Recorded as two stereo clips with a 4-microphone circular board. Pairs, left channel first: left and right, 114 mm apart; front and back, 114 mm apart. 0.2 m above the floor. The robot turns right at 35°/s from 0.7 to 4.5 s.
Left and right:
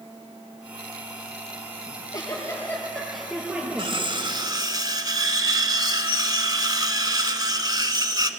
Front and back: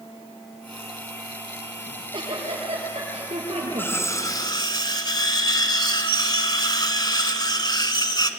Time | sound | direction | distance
1.9 | a giggle | 135° left | 5 m
3.8 | cutlery clinking | 70° right | 1.0 m